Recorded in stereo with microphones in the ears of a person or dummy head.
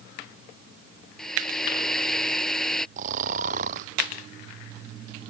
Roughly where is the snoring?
Right.